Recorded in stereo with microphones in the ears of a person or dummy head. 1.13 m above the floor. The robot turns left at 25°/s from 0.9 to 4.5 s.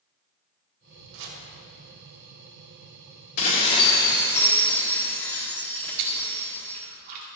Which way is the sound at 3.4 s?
40° left (ahead or behind).